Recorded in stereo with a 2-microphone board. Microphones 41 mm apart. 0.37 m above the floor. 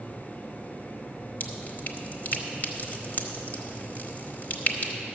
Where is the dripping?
45° left (ahead or behind), 1.1 m.